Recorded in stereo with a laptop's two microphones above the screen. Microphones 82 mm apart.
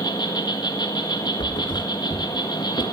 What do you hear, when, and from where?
0.0 s an insect: 60° left (ahead or behind), 1.7 m
1.4 s a thud: 65° left (ahead or behind), 2.5 m